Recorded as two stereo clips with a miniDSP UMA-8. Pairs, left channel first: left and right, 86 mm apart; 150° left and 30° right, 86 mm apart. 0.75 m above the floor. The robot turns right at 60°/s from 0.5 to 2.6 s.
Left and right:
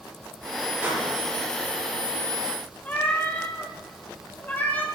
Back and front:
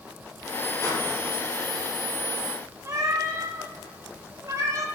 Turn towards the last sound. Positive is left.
turn(degrees=20)